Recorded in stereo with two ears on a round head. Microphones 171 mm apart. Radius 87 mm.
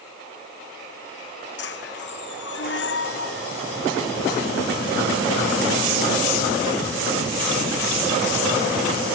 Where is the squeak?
60° left (ahead or behind).